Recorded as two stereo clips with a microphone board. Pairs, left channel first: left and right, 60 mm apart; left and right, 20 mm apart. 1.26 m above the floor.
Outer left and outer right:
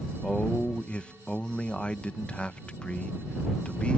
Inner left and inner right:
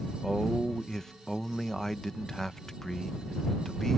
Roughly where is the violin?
I don't hear a violin.